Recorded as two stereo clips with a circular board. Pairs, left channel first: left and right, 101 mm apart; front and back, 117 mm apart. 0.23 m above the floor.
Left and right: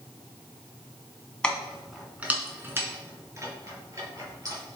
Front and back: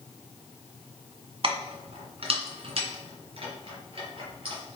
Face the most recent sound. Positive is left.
turn(degrees=-140)